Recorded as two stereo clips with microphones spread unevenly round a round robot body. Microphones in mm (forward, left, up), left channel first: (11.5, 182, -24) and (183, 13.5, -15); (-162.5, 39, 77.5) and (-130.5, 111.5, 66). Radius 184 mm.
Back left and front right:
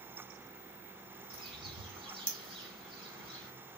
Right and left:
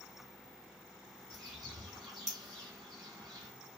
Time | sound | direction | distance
1.3 | a bird | 25° left | 1.4 m